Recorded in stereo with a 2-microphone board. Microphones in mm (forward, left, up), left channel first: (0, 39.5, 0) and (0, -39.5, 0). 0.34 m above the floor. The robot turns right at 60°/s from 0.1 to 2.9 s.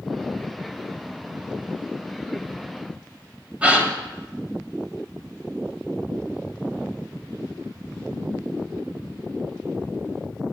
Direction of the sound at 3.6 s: 15° right (ahead or behind).